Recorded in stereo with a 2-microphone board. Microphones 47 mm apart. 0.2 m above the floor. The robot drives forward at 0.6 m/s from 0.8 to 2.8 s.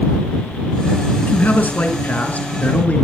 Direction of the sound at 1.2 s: 40° left (ahead or behind).